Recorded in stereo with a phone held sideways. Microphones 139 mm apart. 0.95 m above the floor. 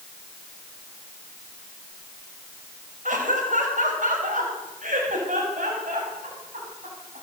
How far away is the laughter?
About 5.5 m.